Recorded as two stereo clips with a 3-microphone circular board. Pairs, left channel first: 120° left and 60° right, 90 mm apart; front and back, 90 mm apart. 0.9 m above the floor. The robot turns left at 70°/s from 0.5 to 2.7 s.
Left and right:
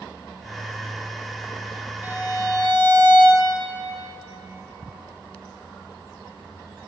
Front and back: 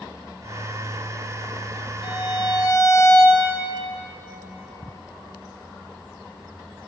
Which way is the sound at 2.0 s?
10° left.